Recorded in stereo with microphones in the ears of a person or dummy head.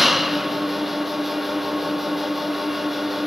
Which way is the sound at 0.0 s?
5° left (ahead or behind).